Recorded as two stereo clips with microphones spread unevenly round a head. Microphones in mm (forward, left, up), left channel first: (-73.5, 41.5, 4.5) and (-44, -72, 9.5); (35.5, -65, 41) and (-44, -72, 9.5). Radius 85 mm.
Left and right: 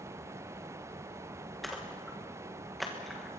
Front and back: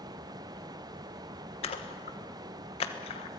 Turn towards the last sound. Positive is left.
turn(degrees=15)